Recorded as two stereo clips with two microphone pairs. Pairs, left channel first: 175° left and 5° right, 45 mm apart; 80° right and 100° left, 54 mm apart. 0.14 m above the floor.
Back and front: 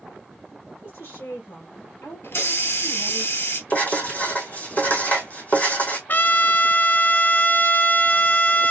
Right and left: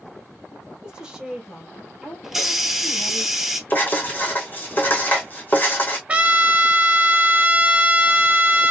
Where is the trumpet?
155° left, 0.6 m.